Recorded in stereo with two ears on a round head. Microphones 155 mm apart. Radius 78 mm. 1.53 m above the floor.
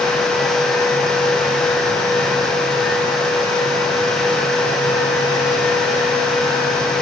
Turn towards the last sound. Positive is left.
No sound to turn to.